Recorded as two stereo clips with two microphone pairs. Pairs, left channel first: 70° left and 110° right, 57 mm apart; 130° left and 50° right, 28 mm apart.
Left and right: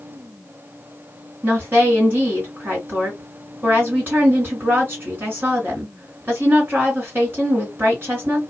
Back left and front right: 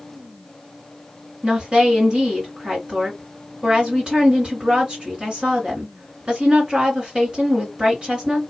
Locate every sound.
1.4 s a woman speaking: 80° right, 2.5 m